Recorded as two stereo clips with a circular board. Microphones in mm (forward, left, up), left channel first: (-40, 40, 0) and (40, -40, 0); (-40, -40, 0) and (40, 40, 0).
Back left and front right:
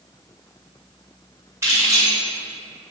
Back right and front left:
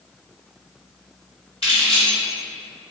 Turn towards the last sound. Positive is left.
turn(degrees=-110)